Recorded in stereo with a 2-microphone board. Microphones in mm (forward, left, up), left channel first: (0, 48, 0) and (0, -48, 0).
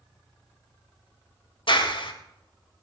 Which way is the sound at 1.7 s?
65° left (ahead or behind).